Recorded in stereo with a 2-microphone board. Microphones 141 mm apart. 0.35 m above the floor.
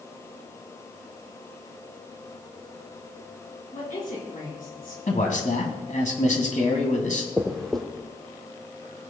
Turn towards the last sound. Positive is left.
turn(degrees=0)  # may be behind; listen again after turning